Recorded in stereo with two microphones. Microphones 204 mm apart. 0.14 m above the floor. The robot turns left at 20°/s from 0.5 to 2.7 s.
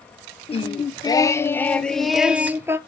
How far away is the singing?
About 0.6 m.